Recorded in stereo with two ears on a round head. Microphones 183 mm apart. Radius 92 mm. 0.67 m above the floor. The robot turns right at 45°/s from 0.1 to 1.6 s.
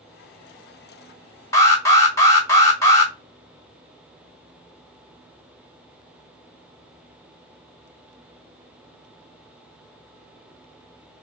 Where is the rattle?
No rattle in this recording.